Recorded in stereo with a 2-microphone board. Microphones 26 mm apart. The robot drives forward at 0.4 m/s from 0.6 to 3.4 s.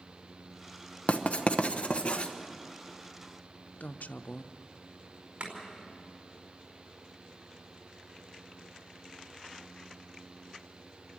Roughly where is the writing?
Left.